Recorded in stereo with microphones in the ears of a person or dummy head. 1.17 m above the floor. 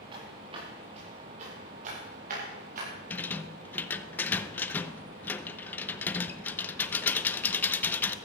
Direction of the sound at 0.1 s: 30° right (ahead or behind).